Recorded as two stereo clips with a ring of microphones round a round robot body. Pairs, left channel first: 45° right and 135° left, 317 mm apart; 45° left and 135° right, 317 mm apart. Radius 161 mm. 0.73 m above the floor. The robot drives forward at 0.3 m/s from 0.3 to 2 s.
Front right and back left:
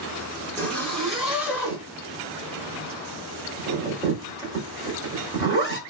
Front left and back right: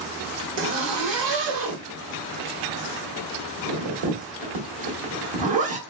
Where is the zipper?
130° right, 1.0 m; by 5.8 s 145° right, 1.3 m.